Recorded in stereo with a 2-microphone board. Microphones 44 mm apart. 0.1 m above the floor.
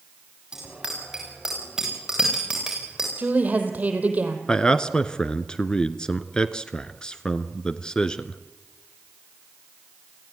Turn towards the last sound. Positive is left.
turn(degrees=20)  # may be behind; listen again after turning